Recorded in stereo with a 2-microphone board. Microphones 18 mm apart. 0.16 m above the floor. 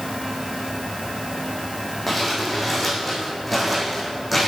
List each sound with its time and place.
2.1 s crumpling: centre (ahead or behind), 3.5 m